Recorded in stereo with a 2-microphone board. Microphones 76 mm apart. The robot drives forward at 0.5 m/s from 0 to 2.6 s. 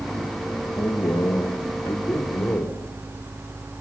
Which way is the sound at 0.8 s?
65° left (ahead or behind).